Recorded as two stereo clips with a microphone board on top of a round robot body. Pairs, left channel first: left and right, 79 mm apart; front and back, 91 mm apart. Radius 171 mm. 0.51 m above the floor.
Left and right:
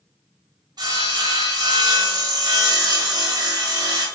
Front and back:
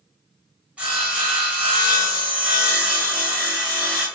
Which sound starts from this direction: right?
Sawing, at 0.8 s.